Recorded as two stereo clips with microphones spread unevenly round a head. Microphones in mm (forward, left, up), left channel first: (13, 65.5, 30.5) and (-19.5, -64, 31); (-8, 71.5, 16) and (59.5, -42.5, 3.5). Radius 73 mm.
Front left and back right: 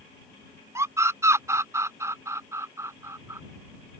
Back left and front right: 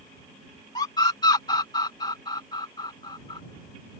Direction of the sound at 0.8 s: 175° right.